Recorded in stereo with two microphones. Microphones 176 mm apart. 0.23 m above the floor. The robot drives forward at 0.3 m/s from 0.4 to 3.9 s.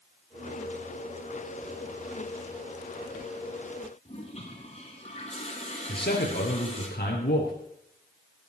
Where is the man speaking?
70° left (ahead or behind), 5 m.